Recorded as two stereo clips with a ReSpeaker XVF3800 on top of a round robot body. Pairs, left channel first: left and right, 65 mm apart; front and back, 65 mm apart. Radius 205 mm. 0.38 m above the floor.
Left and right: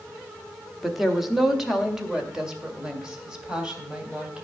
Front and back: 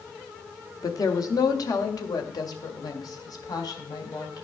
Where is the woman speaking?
Straight ahead, 1.6 m; by 4.4 s 15° right, 3.5 m.